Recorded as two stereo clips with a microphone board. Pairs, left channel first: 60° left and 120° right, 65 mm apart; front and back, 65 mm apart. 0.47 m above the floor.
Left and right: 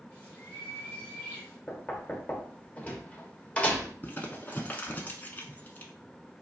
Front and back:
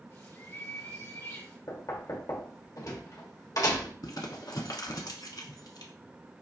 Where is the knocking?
10° right, 0.9 m.